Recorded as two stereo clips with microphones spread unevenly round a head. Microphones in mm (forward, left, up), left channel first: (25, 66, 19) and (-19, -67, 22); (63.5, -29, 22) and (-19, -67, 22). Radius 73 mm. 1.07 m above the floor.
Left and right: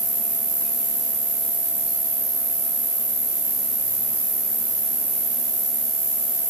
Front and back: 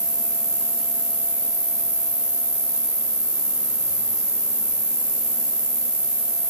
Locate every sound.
0.0 s an insect: 90° right, 1.4 m